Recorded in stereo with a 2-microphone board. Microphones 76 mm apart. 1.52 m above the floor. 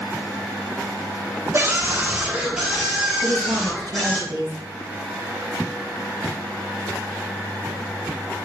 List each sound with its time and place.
1.5 s a scream: 35° right (ahead or behind), 1.3 m; by 4.2 s 5° left (ahead or behind), 3 m
3.2 s a woman speaking: 70° right (ahead or behind), 1.8 m